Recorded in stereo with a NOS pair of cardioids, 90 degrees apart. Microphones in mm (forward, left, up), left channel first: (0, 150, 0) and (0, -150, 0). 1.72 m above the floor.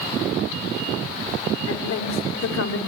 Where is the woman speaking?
55° left, 5 m.